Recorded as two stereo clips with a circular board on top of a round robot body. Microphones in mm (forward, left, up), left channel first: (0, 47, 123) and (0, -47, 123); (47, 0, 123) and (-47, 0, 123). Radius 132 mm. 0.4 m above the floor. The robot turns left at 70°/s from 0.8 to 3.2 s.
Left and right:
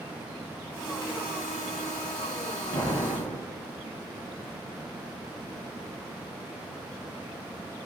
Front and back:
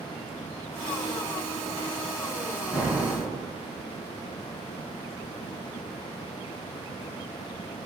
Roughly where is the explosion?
Left.